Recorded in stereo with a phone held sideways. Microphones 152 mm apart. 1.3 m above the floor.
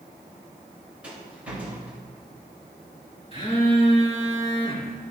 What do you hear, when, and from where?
1.0 s a rattle: 10° right (ahead or behind), 3 m
3.3 s a phone buzzing: 40° left (ahead or behind), 3 m